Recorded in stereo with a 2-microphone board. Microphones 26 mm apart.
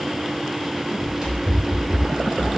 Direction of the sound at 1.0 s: 25° right (ahead or behind).